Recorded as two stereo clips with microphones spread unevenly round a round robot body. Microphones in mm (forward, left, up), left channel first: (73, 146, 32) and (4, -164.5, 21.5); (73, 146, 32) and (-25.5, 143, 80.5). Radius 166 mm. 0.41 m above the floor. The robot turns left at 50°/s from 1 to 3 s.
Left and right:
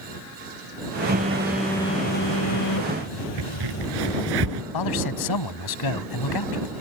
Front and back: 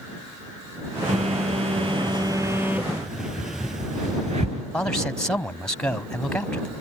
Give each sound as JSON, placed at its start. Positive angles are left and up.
{"t": 1.1, "sound": "a phone buzzing", "azimuth_deg": -165}
{"t": 3.4, "sound": "a crack", "azimuth_deg": -120}
{"t": 4.7, "sound": "a man speaking", "azimuth_deg": 75}